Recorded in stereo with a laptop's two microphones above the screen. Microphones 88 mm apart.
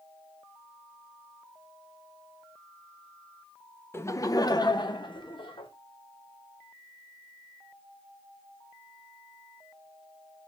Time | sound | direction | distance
3.9 | laughter | 25° left (ahead or behind) | 0.7 m